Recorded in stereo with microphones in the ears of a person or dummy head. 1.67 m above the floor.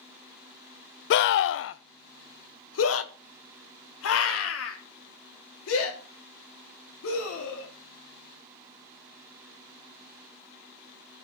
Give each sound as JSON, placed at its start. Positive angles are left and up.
{"t": 1.1, "sound": "a scream", "side_deg": 50, "distance_m": 0.6}